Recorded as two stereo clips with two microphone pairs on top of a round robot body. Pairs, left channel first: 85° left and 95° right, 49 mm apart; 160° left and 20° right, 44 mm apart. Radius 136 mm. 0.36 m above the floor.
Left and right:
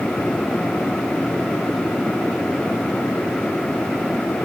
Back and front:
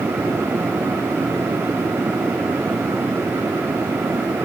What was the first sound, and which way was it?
Only background noise.